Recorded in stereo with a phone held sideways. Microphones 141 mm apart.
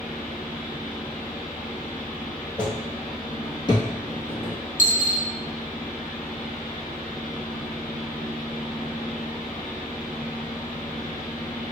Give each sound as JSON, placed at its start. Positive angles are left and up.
{"t": 0.0, "sound": "a fan", "side_deg": 70, "distance_m": 0.7}
{"t": 2.6, "sound": "footsteps", "side_deg": 5, "distance_m": 1.2}
{"t": 4.8, "sound": "a dropped coin", "side_deg": 60, "distance_m": 0.6}